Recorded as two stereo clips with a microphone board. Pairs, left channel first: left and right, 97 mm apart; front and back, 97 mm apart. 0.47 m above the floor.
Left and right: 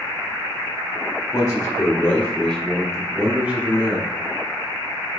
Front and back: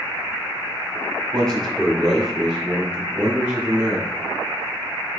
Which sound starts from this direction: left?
A man speaking, at 1.3 s.